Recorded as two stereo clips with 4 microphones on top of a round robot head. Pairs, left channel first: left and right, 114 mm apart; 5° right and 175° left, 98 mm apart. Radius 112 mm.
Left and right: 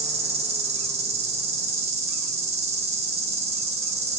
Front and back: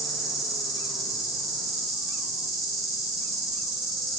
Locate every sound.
0.0 s an insect: 95° right, 0.8 m